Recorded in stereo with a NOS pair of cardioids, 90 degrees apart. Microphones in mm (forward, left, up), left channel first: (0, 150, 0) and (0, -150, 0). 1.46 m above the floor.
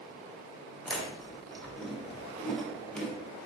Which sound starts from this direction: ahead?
Chewing, at 0.8 s.